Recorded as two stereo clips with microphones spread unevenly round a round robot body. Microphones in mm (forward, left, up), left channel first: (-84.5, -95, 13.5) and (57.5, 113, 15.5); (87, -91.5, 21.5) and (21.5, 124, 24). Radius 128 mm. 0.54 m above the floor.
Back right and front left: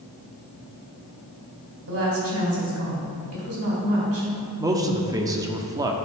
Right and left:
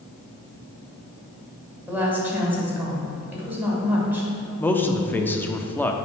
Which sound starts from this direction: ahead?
A man speaking, at 4.6 s.